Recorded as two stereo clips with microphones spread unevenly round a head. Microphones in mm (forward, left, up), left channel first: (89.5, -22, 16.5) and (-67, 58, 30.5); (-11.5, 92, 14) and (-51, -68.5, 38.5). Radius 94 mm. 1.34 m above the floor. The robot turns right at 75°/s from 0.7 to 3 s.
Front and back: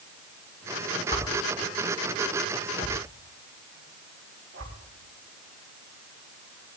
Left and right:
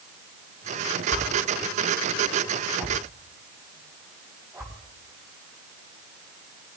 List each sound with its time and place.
1.1 s a whoosh: 40° left, 4 m; by 4.7 s 175° right, 4 m